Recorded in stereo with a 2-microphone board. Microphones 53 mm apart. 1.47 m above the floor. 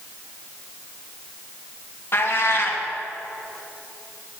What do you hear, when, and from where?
2.1 s a cat meowing: 45° left (ahead or behind), 1.0 m